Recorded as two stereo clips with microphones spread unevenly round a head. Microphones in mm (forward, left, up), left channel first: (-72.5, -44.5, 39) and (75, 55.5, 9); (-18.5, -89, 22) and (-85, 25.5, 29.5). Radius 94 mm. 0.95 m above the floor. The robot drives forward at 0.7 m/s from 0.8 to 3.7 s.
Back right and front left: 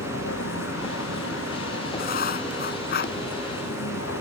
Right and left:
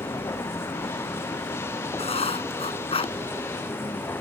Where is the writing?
105° right; by 3.1 s 110° right.